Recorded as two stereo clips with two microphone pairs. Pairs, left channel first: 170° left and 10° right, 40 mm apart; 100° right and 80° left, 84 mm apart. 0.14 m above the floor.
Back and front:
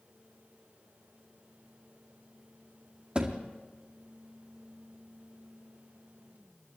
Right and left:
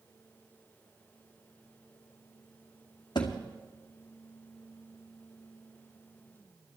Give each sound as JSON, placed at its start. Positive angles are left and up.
{"t": 3.1, "sound": "a thud", "azimuth_deg": -75, "distance_m": 2.0}